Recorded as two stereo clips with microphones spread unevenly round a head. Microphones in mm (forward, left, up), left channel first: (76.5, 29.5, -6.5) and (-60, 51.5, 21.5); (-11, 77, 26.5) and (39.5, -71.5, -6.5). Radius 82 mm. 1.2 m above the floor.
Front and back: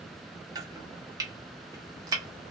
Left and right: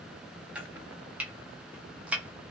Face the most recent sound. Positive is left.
turn(degrees=-165)